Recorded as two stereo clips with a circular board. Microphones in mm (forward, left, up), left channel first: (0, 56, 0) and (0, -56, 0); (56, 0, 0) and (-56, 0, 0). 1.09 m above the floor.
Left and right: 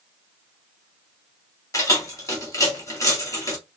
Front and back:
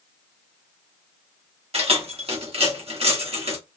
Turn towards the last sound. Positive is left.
turn(degrees=150)